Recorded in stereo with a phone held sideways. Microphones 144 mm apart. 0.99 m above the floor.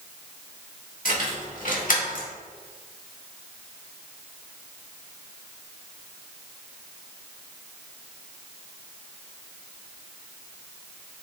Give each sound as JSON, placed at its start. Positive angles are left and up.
{"t": 1.1, "sound": "keys jangling", "side_deg": 70, "distance_m": 1.7}